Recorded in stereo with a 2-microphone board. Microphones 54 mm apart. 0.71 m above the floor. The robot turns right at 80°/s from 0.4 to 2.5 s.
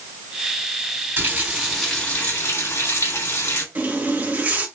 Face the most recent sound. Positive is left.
turn(degrees=-30)  # may be behind; listen again after turning